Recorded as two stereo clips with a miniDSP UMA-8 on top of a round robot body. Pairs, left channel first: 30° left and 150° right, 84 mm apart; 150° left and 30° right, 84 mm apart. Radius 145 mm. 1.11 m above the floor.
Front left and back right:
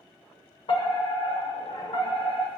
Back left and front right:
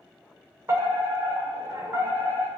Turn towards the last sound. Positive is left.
turn(degrees=30)